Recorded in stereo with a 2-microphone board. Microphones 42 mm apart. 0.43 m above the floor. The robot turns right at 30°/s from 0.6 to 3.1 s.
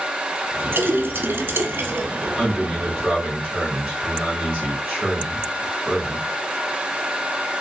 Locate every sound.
0.7 s a splash: 110° right, 0.7 m; by 2.3 s 65° right, 0.7 m
2.4 s a man speaking: 10° right (ahead or behind), 1.8 m; by 6.2 s 30° right (ahead or behind), 1.8 m